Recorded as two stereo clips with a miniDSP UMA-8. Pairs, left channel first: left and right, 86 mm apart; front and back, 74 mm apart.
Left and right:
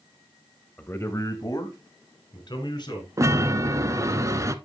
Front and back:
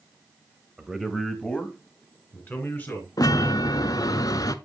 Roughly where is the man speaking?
Behind left.